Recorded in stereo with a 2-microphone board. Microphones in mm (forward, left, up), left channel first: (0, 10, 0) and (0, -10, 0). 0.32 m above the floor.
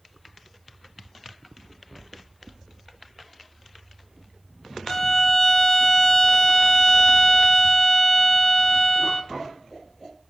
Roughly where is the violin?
Left.